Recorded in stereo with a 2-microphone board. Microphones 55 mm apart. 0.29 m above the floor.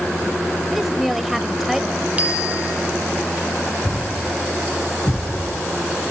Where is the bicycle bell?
25° right (ahead or behind), 6.5 m.